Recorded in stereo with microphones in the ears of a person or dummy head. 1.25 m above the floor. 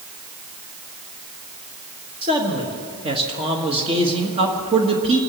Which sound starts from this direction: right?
A man speaking, at 2.2 s.